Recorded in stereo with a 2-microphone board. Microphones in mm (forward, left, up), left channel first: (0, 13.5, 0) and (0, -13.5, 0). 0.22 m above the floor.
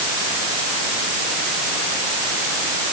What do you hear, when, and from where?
Only background noise.